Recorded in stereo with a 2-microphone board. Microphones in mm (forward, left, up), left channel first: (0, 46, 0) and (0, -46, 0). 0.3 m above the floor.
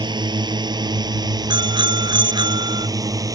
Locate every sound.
0.0 s a drone: 55° right (ahead or behind); by 3.4 s 40° right (ahead or behind)
1.5 s a bicycle bell: 55° right (ahead or behind)